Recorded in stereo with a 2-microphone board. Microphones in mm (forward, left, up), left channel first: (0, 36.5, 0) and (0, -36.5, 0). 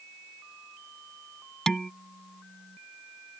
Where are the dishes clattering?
5° left (ahead or behind).